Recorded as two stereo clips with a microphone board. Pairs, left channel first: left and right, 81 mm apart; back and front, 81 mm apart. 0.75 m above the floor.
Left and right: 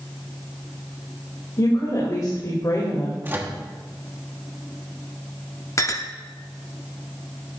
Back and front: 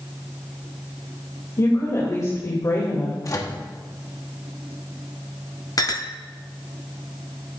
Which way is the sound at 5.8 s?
140° left.